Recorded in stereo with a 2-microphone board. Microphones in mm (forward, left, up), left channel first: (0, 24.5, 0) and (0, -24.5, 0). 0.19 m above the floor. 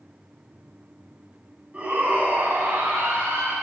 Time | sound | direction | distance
1.7 | a shout | 30° right (ahead or behind) | 1.7 m